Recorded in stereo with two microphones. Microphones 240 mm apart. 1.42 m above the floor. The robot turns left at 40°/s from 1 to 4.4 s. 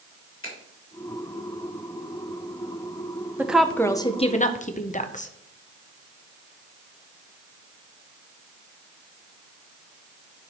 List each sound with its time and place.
0.4 s a finger snap: 60° left (ahead or behind), 3 m
3.4 s a woman speaking: 170° right, 0.7 m; by 5.3 s 150° left, 0.7 m